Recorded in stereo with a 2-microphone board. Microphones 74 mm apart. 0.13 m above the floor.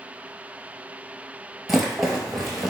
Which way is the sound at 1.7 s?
5° right (ahead or behind).